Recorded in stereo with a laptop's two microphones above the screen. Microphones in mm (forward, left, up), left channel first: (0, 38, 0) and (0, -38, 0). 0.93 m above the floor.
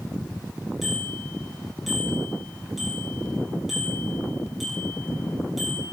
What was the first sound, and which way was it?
A bicycle bell, 5° right (ahead or behind).